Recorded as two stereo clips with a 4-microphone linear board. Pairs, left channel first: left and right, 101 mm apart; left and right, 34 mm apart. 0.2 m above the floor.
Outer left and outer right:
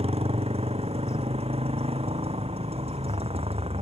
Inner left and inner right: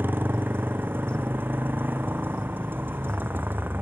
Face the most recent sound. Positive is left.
turn(degrees=-80)